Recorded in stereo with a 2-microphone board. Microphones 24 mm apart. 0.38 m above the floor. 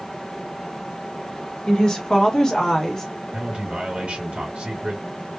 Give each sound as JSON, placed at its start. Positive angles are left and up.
{"t": 1.7, "sound": "a woman speaking", "side_deg": 35, "distance_m": 1.6}
{"t": 3.3, "sound": "a man speaking", "side_deg": -55, "distance_m": 1.9}